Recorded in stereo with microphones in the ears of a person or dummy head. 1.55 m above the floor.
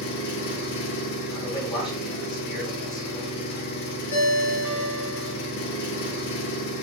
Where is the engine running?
55° left (ahead or behind), 0.8 m.